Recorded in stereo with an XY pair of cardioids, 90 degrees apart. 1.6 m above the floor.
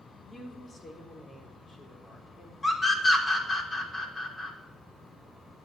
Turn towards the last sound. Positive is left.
turn(degrees=30)